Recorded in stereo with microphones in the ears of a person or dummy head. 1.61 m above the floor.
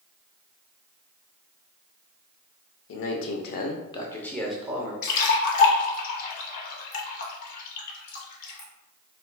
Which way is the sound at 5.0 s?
50° left (ahead or behind).